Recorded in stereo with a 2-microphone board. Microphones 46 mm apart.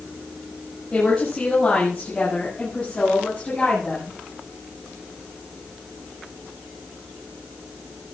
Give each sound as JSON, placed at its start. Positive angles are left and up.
{"t": 0.9, "sound": "a woman speaking", "side_deg": 15, "distance_m": 6.5}